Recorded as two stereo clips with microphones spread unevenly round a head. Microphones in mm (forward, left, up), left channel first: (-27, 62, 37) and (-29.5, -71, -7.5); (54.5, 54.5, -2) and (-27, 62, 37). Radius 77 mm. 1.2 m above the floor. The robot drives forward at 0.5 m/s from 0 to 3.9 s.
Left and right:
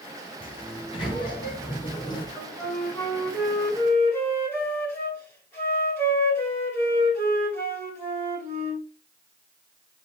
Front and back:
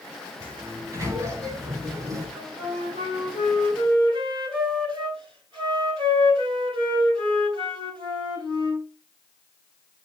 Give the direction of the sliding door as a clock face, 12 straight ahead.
8 o'clock.